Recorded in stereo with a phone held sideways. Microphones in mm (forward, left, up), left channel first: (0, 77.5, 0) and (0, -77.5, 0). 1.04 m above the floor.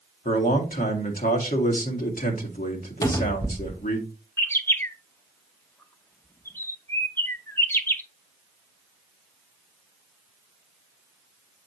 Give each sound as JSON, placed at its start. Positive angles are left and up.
{"t": 0.2, "sound": "a man speaking", "side_deg": 65, "distance_m": 1.8}
{"t": 3.0, "sound": "a cupboard door", "side_deg": 20, "distance_m": 1.2}
{"t": 4.4, "sound": "a bird", "side_deg": 15, "distance_m": 0.8}